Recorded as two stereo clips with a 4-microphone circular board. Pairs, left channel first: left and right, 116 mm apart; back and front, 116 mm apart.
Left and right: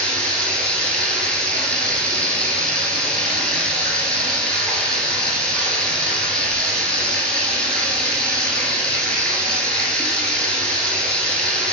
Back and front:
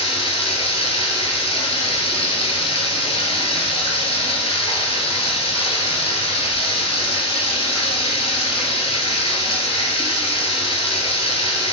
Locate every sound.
0.0 s running water: 170° left, 0.8 m